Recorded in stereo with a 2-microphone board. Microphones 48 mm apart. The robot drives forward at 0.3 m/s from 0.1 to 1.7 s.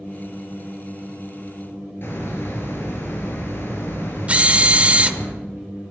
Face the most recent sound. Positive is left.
turn(degrees=-30)  # may be behind; listen again after turning